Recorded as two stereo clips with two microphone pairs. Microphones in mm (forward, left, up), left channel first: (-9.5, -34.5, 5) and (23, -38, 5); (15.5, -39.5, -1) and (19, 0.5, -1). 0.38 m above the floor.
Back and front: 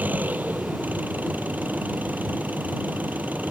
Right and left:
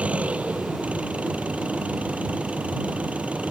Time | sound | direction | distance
0.0 | an engine running | 25° left | ?